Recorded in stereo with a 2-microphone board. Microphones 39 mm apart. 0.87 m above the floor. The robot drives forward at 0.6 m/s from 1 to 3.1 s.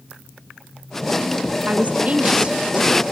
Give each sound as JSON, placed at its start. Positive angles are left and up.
{"t": 1.7, "sound": "a woman speaking", "side_deg": -45, "distance_m": 1.1}